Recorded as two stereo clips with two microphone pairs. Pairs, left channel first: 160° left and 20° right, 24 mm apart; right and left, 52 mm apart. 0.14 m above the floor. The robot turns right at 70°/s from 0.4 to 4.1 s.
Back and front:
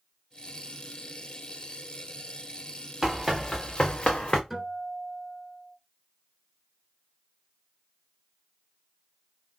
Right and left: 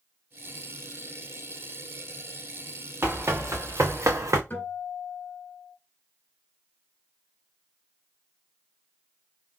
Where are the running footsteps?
50° left, 1.4 m; by 4.4 s 100° left, 0.7 m.